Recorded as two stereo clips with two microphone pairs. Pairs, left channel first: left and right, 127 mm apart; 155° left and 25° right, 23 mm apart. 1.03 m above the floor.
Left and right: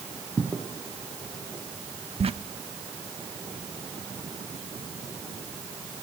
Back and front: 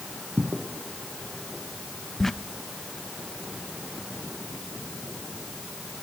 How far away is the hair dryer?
No hair dryer in this recording.